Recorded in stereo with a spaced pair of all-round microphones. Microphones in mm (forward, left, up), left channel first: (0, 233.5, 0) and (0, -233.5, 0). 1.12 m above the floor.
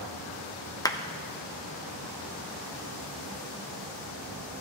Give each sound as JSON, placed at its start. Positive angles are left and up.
{"t": 0.8, "sound": "a clap", "side_deg": 10, "distance_m": 0.6}